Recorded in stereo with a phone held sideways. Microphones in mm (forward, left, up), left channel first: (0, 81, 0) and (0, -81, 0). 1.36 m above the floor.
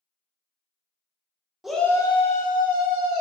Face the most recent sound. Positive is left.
turn(degrees=70)  # may be behind; listen again after turning